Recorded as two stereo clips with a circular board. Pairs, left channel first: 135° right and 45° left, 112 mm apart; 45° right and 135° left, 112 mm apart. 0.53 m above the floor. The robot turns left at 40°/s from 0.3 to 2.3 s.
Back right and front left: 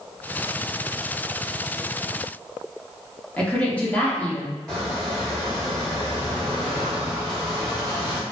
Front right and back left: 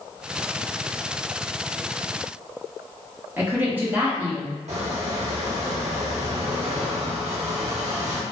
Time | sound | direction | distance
3.4 | a woman speaking | 170° left | 0.7 m
4.7 | a squeak | 140° left | 0.7 m